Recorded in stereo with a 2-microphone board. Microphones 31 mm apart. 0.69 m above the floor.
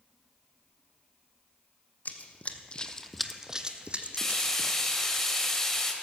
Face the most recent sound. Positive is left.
turn(degrees=15)  # may be behind; listen again after turning